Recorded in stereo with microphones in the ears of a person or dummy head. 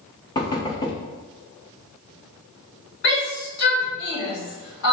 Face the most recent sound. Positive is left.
turn(degrees=65)  # may be behind; listen again after turning